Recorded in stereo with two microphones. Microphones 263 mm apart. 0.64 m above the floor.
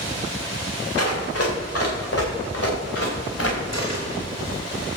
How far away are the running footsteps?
About 5.5 m.